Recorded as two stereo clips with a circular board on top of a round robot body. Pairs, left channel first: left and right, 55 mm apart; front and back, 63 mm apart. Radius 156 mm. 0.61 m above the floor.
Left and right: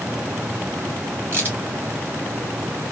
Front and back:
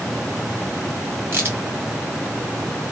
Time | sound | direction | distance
1.3 | a crack | 135° right | 2.5 m